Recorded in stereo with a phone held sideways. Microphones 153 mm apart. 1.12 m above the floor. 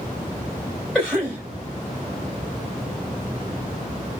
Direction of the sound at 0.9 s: Centre (ahead or behind).